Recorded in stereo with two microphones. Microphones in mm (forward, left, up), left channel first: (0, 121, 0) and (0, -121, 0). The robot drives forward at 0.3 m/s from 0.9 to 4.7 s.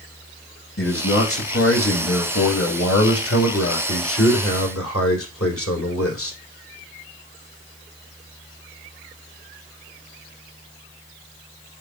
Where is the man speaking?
65° left (ahead or behind), 4.5 m; by 6.4 s 70° left (ahead or behind), 4 m.